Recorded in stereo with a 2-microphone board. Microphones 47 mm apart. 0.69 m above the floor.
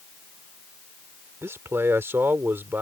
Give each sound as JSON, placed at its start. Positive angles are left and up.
{"t": 1.4, "sound": "a man speaking", "side_deg": -70}